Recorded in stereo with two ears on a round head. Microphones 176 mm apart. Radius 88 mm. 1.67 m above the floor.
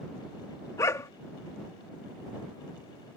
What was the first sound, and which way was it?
A dog barking, 15° left (ahead or behind).